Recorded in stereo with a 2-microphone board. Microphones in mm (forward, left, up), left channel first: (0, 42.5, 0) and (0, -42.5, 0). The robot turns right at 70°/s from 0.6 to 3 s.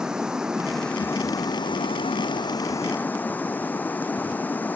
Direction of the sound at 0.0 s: 10° right.